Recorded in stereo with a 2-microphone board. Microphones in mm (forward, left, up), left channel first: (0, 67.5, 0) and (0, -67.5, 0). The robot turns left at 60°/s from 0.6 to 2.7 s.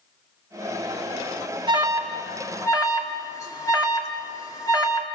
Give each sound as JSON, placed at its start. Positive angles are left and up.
{"t": 1.7, "sound": "an alarm", "side_deg": -35, "distance_m": 2.5}